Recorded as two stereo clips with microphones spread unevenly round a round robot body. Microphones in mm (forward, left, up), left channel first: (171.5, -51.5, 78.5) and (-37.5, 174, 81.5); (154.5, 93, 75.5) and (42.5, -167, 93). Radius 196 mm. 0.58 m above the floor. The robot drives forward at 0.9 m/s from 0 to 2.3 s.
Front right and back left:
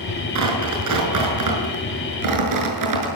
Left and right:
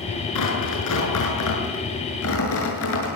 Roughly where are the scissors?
I don't hear scissors.